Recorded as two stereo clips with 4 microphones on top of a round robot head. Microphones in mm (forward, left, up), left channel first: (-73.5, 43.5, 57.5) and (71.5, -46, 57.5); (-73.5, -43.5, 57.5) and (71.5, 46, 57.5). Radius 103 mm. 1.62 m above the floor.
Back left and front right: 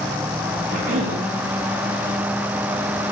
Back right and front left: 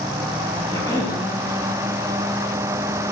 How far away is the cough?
About 4.5 m.